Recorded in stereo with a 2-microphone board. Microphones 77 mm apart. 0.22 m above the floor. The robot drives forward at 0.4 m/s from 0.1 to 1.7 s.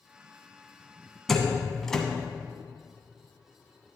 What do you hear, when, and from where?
1.3 s a door slam: 5° left (ahead or behind), 1.1 m